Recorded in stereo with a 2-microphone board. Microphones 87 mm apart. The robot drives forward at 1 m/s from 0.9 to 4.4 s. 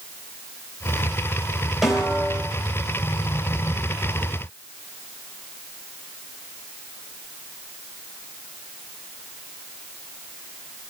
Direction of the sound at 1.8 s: 5° right (ahead or behind).